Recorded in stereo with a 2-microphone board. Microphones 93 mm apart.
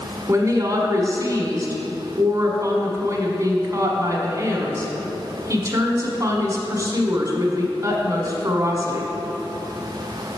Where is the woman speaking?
35° right (ahead or behind), 1.3 m.